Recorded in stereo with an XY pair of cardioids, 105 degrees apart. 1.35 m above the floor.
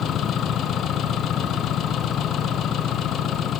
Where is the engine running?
70° left.